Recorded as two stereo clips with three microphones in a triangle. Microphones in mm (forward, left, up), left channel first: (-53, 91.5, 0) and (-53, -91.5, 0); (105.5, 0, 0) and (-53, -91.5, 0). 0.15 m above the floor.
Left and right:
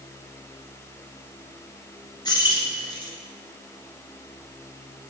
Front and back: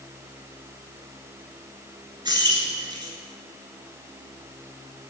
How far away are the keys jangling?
About 1.5 m.